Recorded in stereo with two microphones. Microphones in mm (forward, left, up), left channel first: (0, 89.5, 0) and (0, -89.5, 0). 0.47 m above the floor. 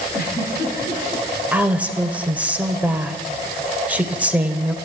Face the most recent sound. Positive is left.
turn(degrees=-10)  # may be behind; listen again after turning